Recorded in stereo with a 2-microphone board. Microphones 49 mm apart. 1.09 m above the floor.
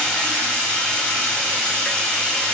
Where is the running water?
15° left (ahead or behind), 0.9 m.